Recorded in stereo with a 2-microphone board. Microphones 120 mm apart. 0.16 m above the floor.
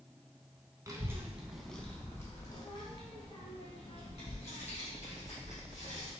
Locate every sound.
0.9 s a child speaking: 25° right (ahead or behind), 0.8 m; by 6.1 s 65° left (ahead or behind), 2.5 m